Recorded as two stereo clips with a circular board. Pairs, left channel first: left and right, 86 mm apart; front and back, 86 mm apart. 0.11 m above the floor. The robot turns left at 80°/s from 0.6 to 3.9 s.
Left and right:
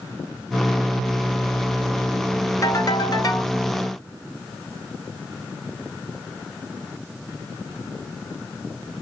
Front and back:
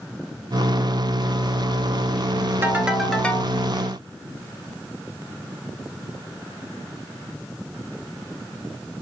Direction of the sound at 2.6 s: 125° left.